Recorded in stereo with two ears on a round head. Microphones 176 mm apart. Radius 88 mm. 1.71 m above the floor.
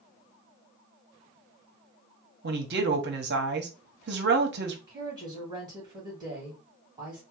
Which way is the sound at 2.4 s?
60° right (ahead or behind).